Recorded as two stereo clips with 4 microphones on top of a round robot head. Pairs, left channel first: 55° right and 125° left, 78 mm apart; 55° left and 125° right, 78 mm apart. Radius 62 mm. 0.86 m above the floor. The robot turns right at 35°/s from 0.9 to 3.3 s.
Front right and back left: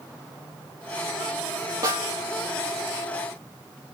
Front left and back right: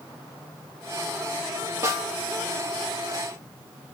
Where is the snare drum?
175° left, 4.5 m; by 2.1 s straight behind, 4.5 m.